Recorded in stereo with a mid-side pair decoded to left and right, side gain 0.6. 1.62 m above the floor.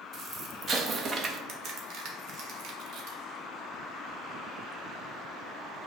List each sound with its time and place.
0.1 s an explosion: 35° right, 0.6 m
1.5 s a crack: 55° right, 0.9 m